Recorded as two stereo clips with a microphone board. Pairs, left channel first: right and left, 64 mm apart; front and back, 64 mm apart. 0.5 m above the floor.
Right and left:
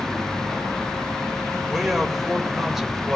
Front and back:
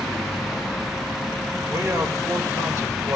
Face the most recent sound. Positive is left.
turn(degrees=175)